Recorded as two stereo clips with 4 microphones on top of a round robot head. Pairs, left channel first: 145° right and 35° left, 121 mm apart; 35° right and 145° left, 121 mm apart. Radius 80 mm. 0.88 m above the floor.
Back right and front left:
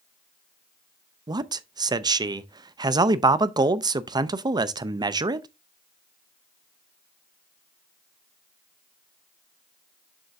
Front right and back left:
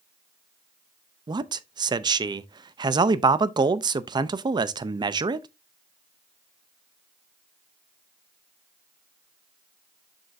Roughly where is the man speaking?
Left.